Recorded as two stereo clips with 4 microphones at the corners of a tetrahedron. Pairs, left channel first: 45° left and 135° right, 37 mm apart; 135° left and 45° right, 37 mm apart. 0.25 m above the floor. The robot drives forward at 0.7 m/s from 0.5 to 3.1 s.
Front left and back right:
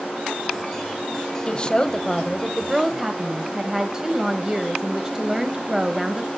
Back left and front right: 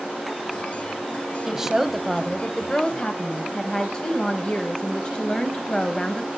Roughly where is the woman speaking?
Ahead.